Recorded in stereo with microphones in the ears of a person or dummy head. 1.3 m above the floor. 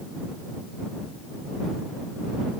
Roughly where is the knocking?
No knocking in this recording.